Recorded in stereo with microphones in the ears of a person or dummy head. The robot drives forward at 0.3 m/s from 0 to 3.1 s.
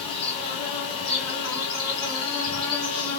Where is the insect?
Centre (ahead or behind), 2.5 m.